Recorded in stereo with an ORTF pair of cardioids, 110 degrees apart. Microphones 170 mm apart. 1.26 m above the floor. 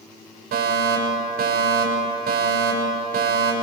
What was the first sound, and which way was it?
A fire alarm, 65° right.